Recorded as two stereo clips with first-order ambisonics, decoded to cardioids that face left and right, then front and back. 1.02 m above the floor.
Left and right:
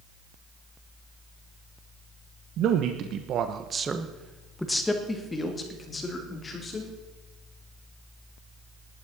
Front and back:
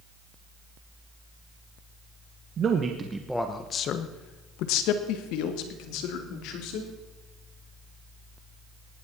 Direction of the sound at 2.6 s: 125° right.